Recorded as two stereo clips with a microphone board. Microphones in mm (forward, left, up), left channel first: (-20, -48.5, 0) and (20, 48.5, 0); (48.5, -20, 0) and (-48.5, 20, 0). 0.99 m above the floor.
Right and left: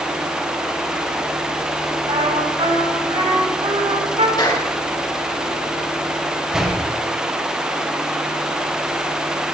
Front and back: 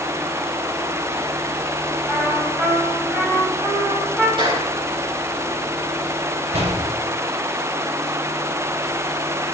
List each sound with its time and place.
2.1 s a trumpet: 85° left, 7 m
4.4 s a clap: 160° right, 9 m
6.5 s a door slam: 155° left, 4 m